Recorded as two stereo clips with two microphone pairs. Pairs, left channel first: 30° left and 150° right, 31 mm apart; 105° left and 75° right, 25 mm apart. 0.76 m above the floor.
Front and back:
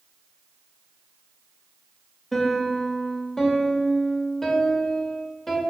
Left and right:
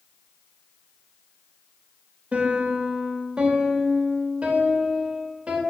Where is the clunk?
No clunk in this recording.